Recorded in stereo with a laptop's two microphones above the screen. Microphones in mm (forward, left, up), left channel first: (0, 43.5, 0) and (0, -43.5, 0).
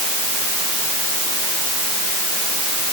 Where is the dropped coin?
I don't hear a dropped coin.